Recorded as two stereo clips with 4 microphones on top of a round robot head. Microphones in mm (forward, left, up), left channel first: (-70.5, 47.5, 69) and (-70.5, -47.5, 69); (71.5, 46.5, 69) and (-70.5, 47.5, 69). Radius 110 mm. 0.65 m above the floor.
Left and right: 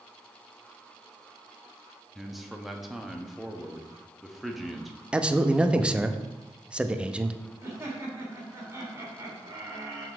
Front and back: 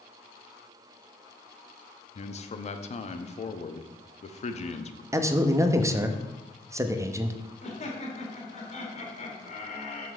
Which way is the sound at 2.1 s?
Straight ahead.